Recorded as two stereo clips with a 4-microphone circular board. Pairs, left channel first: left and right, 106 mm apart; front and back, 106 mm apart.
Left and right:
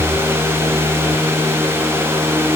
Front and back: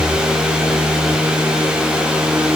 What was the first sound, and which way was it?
Only background noise.